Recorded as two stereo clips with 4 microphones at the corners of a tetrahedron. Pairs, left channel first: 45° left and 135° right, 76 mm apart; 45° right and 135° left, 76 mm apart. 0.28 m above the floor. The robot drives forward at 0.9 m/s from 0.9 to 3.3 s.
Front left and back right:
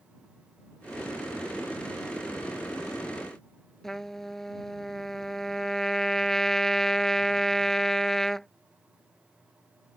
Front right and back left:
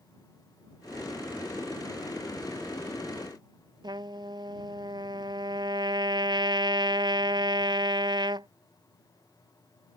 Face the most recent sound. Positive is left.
turn(degrees=130)